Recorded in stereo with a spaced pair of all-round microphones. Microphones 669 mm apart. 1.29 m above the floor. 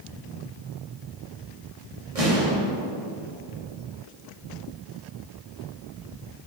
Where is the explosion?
60° right (ahead or behind), 2.5 m.